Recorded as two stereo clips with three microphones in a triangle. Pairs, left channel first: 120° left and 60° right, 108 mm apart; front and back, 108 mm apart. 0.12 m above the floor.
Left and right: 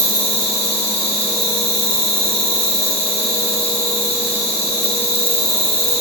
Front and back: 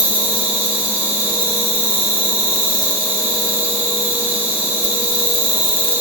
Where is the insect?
105° left, 4 m.